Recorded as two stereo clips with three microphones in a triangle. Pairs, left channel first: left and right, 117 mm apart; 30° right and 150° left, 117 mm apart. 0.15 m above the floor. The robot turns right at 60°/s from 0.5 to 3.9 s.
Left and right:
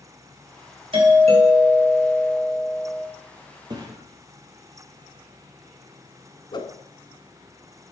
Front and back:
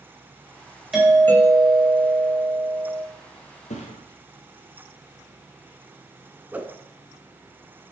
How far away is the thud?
About 1.6 m.